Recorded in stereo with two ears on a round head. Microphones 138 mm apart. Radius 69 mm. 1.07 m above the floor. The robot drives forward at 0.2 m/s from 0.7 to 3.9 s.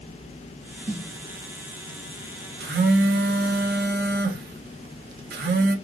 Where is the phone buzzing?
65° right (ahead or behind), 0.6 m.